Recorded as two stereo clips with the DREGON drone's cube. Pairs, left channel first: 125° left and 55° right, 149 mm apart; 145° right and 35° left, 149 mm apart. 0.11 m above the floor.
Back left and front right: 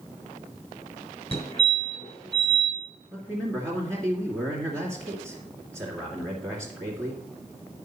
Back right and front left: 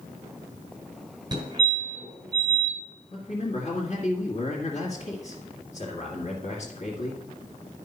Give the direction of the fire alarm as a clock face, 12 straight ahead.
9 o'clock.